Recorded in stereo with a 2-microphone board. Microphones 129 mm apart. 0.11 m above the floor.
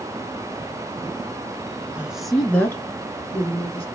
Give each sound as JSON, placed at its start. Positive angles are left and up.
{"t": 1.9, "sound": "a woman speaking", "side_deg": -10, "distance_m": 1.1}